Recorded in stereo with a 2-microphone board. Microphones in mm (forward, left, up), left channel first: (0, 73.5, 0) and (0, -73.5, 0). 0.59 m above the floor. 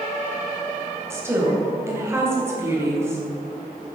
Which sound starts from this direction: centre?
A woman speaking, at 1.1 s.